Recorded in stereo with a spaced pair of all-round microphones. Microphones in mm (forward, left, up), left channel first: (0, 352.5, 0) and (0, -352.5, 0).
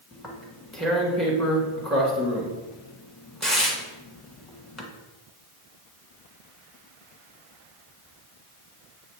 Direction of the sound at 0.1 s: Centre (ahead or behind).